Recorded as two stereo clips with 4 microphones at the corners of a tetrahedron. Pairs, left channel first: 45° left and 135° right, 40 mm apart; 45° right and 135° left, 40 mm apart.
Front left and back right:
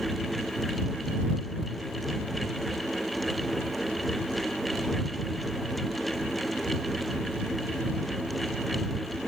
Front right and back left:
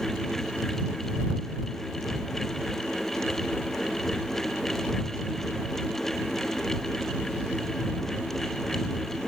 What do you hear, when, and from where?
Only background noise.